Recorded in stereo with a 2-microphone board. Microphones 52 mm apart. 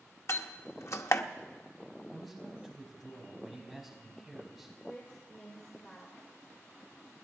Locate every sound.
0.3 s a door slam: 60° left (ahead or behind), 0.8 m
2.1 s a man speaking: centre (ahead or behind), 5.5 m
4.9 s a woman speaking: 25° left (ahead or behind), 3 m